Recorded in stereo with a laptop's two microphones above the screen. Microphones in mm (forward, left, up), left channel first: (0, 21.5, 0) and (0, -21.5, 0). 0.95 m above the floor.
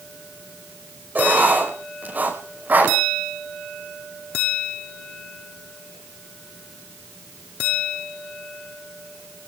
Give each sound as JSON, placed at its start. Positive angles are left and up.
{"t": 1.1, "sound": "writing", "side_deg": -45, "distance_m": 5.5}